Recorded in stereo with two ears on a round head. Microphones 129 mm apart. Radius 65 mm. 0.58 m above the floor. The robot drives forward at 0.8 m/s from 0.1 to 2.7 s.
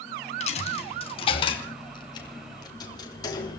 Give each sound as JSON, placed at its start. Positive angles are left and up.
{"t": 0.4, "sound": "a dropped coin", "side_deg": 50, "distance_m": 2.5}